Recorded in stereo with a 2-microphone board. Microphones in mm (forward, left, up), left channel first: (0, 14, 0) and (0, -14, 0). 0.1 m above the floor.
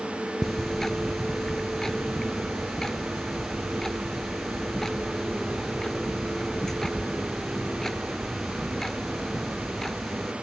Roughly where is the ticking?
Centre.